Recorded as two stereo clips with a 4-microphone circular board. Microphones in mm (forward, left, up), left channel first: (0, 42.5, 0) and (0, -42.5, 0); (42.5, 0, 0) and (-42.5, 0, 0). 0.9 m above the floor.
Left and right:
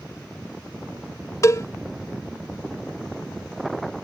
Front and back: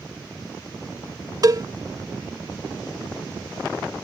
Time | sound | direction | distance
1.4 | a cowbell | 140° left | ?